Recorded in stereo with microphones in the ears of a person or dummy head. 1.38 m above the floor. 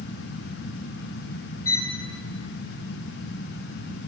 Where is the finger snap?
No finger snap in this recording.